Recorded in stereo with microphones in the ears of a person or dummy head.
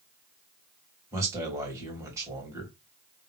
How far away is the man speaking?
About 2.5 m.